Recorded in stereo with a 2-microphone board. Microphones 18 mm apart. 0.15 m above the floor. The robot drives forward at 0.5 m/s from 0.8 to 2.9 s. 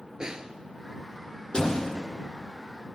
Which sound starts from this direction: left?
A door slam, at 1.5 s.